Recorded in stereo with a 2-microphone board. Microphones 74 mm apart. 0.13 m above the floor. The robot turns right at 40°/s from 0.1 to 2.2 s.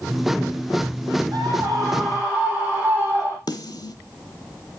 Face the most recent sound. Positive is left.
turn(degrees=70)  # may be behind; listen again after turning